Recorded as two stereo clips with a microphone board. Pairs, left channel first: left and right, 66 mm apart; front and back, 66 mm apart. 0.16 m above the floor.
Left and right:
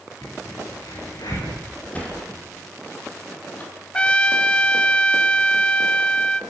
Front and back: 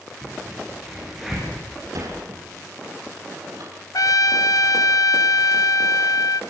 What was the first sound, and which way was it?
A crack, 90° left.